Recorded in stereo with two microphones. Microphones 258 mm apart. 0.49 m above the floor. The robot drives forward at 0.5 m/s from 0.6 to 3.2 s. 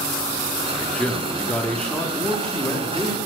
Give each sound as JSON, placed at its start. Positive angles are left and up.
{"t": 0.8, "sound": "a man speaking", "side_deg": 5, "distance_m": 0.7}